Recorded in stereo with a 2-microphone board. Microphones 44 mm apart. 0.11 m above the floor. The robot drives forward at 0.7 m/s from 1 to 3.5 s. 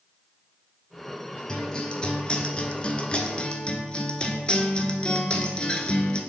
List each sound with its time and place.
1.5 s a guitar: 15° left (ahead or behind), 1.2 m; by 6.2 s 25° left (ahead or behind), 0.9 m